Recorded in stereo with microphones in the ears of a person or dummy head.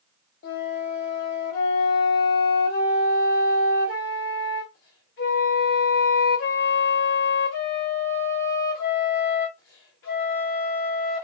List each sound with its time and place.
0.4 s a flute: 45° left (ahead or behind), 1.1 m